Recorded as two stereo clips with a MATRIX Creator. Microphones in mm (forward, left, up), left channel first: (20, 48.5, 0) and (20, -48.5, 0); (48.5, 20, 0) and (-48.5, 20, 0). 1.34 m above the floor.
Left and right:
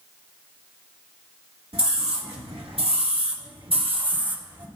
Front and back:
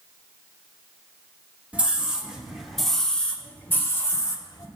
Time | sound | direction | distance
1.7 | a scream | 105° right | 1.9 m